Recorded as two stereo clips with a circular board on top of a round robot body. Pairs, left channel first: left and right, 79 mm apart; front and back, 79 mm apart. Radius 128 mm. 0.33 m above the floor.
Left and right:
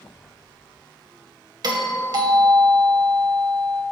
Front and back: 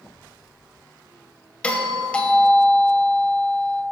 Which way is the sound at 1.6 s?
75° right.